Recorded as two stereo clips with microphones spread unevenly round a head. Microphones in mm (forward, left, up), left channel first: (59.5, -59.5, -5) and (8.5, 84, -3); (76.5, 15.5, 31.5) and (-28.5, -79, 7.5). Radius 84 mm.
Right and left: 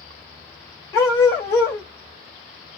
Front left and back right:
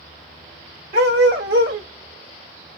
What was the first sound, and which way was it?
A dog barking, 145° right.